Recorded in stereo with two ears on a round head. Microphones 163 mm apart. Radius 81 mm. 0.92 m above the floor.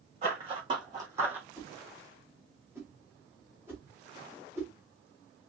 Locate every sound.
0.2 s running footsteps: 35° right (ahead or behind), 2.5 m; by 1.5 s 5° right (ahead or behind), 1.3 m
1.6 s a whoosh: 15° right (ahead or behind), 1.4 m